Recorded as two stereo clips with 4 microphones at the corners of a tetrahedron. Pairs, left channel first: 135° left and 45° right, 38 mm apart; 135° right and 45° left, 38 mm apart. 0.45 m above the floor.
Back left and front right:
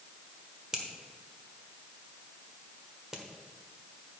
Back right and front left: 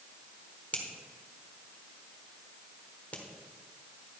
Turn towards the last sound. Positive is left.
turn(degrees=-110)